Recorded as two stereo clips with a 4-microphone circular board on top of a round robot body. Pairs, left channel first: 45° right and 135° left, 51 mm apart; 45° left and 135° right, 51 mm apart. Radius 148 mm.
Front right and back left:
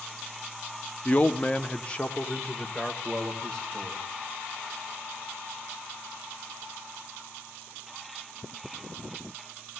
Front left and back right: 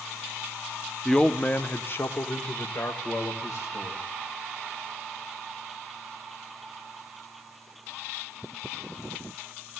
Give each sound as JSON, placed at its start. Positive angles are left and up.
{"t": 1.1, "sound": "a man speaking", "azimuth_deg": -35, "distance_m": 0.8}